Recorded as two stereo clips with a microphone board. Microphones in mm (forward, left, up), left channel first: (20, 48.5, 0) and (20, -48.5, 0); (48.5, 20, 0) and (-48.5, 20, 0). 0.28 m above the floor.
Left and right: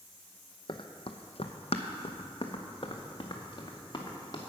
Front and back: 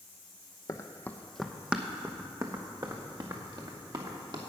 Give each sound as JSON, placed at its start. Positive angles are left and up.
{"t": 0.7, "sound": "running footsteps", "azimuth_deg": 55, "distance_m": 0.9}